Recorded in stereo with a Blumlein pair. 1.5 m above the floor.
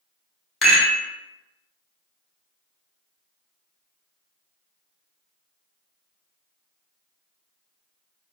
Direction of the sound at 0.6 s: 20° left.